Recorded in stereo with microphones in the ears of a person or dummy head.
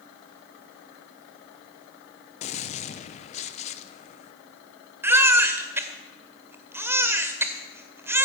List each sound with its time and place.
2.4 s a gunshot: 30° left (ahead or behind), 0.8 m
5.0 s a baby crying: 15° right (ahead or behind), 1.7 m